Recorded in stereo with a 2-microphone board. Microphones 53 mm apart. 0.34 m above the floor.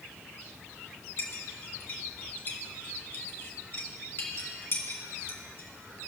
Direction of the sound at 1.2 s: 50° left (ahead or behind).